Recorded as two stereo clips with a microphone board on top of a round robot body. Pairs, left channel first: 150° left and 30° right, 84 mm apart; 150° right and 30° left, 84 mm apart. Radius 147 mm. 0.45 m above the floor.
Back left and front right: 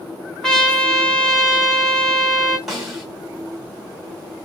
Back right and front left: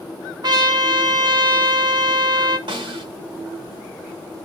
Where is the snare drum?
55° left, 2.5 m.